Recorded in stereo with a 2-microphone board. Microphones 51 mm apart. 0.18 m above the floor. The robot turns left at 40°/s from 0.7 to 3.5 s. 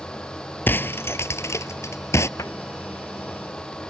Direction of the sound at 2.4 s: 85° left.